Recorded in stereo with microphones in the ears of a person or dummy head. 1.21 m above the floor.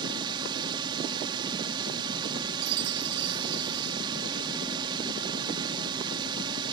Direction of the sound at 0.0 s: 25° right (ahead or behind).